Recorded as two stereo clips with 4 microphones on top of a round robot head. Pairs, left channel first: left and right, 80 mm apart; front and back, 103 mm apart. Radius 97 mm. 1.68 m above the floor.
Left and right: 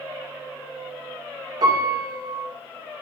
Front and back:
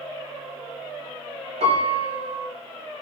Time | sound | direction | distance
1.6 | a piano | 145° right | 2.5 m